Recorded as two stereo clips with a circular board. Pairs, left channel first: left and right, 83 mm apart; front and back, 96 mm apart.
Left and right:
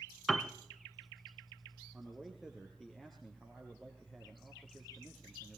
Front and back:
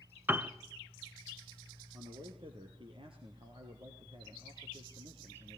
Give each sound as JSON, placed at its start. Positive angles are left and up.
{"t": 0.3, "sound": "a piano", "azimuth_deg": 175, "distance_m": 1.0}
{"t": 1.9, "sound": "a man speaking", "azimuth_deg": 180, "distance_m": 3.0}